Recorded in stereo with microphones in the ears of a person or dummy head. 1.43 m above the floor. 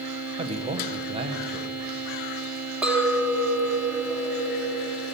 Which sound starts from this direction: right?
A man speaking, at 0.4 s.